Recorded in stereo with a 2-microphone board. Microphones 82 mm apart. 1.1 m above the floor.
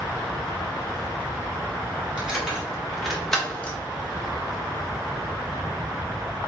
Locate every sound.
2.2 s keys jangling: 15° right (ahead or behind), 1.4 m; by 3.8 s 15° left (ahead or behind), 0.9 m